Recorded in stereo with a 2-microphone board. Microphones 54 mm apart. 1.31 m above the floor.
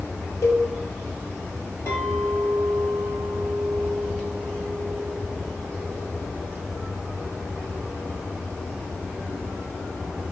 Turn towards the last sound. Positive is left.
turn(degrees=50)  # may be behind; listen again after turning